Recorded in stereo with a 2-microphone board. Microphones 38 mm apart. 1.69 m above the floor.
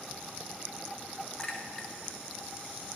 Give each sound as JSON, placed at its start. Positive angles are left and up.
{"t": 1.4, "sound": "a clink", "side_deg": 20, "distance_m": 1.6}